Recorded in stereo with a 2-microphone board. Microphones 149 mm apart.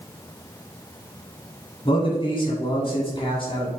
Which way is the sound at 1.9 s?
35° left (ahead or behind).